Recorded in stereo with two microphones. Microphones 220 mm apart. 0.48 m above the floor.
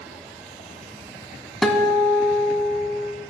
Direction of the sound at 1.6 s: 5° left (ahead or behind).